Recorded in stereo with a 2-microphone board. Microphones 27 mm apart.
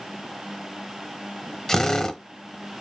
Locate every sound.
1.7 s a drill: 15° left (ahead or behind), 0.8 m